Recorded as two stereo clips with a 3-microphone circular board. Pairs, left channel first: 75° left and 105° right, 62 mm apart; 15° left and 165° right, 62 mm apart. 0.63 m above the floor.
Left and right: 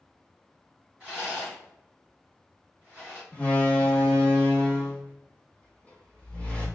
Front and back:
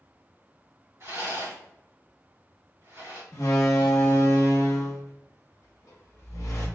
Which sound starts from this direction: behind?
A rattle, at 1.0 s.